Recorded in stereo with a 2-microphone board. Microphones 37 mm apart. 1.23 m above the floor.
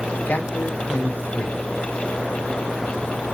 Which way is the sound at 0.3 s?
60° left (ahead or behind).